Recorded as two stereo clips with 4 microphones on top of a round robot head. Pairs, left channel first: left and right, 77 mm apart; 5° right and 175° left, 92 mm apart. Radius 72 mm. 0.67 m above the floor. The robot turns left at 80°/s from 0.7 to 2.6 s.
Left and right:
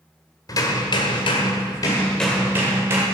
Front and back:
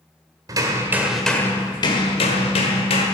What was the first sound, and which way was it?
Hammering, 130° left.